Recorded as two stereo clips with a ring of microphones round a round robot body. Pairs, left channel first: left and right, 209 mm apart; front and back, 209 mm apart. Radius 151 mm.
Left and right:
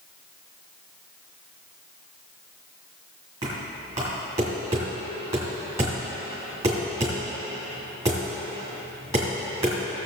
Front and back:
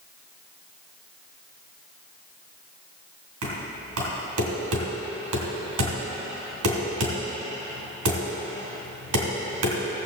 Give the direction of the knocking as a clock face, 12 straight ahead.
6 o'clock.